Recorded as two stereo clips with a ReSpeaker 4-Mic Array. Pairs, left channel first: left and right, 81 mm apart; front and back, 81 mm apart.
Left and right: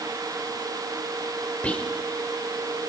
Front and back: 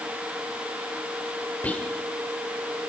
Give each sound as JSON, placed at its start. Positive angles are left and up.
{"t": 1.6, "sound": "whispering", "azimuth_deg": 40, "distance_m": 1.5}